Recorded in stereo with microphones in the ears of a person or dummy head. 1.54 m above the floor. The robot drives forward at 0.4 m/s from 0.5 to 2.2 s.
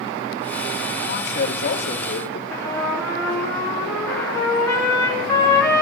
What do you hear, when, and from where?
1.1 s a man speaking: 60° left (ahead or behind), 1.9 m; by 2.4 s 50° left (ahead or behind), 2 m
2.5 s a trumpet: 10° left (ahead or behind), 3.5 m